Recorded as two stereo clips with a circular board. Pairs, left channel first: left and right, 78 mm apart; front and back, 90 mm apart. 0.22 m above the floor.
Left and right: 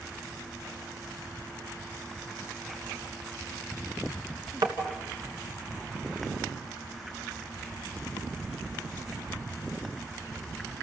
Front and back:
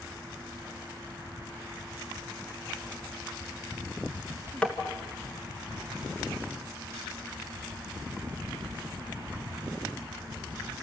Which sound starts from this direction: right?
Tapping, at 4.6 s.